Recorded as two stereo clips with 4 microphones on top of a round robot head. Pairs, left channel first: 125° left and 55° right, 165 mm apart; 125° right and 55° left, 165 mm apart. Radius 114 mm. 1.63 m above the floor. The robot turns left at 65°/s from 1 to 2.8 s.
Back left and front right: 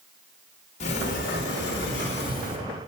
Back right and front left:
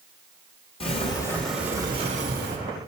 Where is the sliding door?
175° left, 2.5 m; by 2.6 s 75° left, 2.5 m.